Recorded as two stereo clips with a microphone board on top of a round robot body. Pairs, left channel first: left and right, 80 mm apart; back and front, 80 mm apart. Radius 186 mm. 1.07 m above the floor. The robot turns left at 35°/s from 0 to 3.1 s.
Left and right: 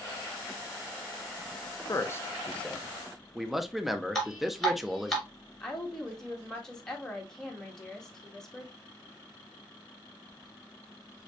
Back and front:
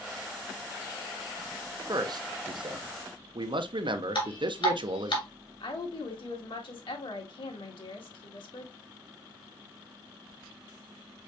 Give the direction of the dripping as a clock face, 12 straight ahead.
6 o'clock.